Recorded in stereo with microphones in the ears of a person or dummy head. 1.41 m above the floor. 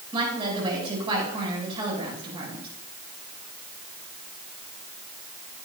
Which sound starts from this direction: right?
A woman speaking, at 0.1 s.